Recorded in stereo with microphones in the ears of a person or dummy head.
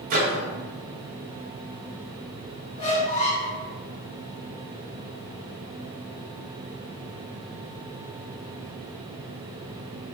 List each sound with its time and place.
0.1 s a microwave: 45° right (ahead or behind), 0.6 m
2.8 s a squeak: 35° left (ahead or behind), 1.0 m